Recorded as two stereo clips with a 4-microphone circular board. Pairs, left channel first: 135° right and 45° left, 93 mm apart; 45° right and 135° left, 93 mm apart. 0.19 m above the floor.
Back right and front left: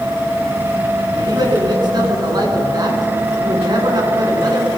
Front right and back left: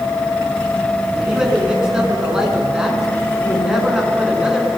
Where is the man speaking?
55° left, 2.5 m.